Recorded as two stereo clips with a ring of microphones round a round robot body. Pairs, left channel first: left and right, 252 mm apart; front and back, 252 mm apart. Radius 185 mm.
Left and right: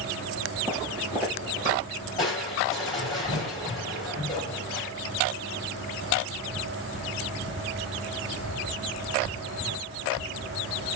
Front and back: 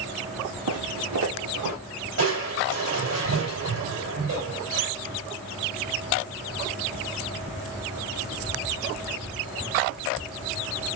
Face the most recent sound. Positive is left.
turn(degrees=170)